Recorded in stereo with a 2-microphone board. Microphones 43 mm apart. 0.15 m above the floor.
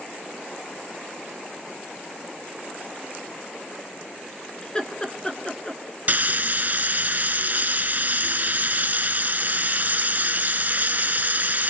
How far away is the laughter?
About 2 m.